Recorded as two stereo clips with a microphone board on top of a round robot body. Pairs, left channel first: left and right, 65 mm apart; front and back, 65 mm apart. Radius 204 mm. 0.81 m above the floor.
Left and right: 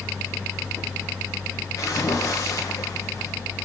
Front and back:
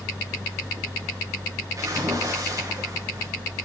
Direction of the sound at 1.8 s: 130° left.